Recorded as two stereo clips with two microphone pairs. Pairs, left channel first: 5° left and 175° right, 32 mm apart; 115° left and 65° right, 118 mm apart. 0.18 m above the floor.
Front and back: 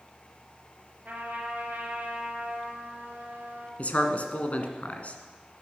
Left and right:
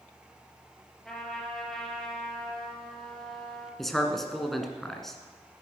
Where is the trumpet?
155° right, 3.5 m.